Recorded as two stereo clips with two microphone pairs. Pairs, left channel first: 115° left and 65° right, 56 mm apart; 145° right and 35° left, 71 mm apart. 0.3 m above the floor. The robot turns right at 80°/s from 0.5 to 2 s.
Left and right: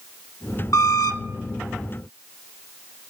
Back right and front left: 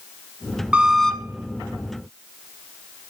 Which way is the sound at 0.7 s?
105° left.